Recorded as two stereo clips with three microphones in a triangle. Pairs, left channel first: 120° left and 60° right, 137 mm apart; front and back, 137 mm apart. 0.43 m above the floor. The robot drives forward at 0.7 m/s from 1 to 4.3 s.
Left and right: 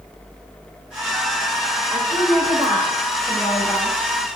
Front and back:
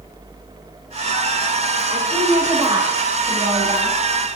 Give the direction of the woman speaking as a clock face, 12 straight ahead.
5 o'clock.